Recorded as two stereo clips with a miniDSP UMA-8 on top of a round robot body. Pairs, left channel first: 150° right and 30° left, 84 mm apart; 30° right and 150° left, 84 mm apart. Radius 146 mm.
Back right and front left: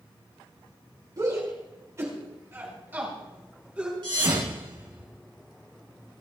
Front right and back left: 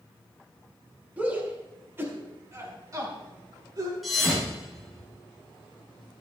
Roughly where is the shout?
Left.